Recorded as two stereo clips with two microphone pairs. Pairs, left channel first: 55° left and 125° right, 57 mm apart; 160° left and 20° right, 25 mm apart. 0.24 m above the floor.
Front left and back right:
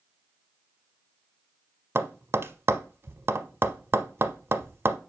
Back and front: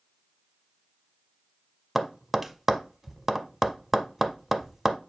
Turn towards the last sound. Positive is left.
turn(degrees=-105)